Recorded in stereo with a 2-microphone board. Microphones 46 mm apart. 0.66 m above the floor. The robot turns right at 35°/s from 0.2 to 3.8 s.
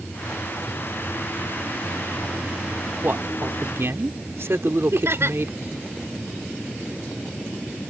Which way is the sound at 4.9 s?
70° right (ahead or behind).